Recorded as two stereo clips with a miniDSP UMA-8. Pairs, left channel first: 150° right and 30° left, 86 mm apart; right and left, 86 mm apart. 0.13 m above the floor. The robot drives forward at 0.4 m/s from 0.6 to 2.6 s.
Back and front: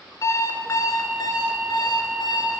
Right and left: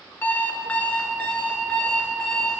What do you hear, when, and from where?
0.2 s an alarm clock: 150° right, 0.7 m; by 2.6 s 170° right, 1.3 m